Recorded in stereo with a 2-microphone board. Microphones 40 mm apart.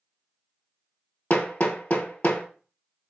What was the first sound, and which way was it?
Hammering, 40° left (ahead or behind).